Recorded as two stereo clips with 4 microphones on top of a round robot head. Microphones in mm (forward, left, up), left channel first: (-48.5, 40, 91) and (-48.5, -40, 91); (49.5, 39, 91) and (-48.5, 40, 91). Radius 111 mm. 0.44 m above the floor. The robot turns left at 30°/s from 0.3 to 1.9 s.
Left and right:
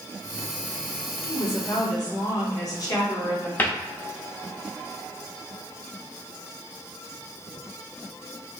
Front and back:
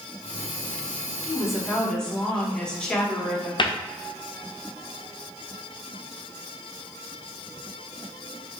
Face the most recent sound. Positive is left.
turn(degrees=25)